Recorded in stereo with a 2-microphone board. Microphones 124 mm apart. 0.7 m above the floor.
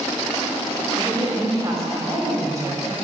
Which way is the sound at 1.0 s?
30° right (ahead or behind).